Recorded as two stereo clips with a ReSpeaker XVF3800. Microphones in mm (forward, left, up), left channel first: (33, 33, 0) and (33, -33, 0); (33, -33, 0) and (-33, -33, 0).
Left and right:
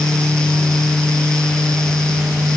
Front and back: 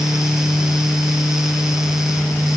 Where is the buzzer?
No buzzer in this recording.